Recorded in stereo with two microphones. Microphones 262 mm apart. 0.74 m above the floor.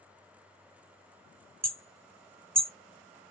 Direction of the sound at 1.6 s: 75° right (ahead or behind).